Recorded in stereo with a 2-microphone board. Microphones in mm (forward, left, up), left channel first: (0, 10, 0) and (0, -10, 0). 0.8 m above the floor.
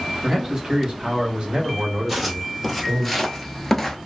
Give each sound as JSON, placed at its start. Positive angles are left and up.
{"t": 0.2, "sound": "a man speaking", "side_deg": -20, "distance_m": 1.1}
{"t": 2.1, "sound": "footsteps", "side_deg": -10, "distance_m": 1.1}